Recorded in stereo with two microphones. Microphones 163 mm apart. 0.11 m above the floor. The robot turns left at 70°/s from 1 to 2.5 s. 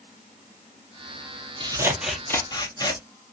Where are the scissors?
145° right, 0.6 m; by 3.0 s 150° left, 0.6 m.